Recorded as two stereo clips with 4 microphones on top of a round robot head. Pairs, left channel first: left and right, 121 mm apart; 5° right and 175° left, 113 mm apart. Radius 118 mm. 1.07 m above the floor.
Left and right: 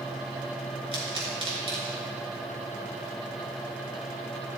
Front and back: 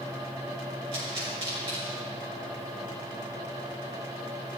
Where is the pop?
130° right, 5 m.